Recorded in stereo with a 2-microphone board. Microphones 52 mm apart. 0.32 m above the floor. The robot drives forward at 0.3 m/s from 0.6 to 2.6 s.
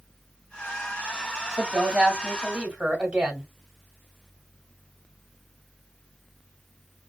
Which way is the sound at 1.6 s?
20° right (ahead or behind).